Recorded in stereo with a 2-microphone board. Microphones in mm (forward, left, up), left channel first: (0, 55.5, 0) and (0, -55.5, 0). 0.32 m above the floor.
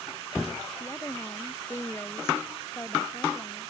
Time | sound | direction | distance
0.8 | a woman speaking | 20° left (ahead or behind) | ?